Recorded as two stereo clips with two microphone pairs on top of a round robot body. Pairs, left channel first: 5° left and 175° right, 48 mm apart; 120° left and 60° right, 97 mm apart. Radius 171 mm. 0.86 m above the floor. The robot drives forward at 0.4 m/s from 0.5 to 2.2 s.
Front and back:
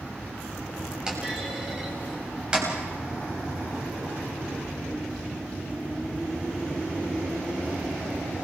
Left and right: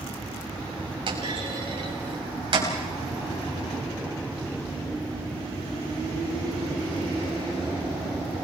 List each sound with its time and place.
1.1 s a clunk: 100° right, 6.5 m; by 2.7 s 105° right, 6.5 m